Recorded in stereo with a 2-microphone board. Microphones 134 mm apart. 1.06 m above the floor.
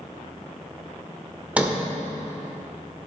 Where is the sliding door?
10° right (ahead or behind), 1.1 m.